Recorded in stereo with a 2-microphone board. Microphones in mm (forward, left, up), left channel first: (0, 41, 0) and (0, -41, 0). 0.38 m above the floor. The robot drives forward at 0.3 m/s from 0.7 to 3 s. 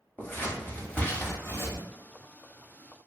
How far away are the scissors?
About 0.8 m.